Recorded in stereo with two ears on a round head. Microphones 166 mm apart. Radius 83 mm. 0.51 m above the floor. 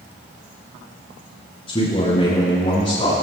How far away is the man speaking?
About 5.5 m.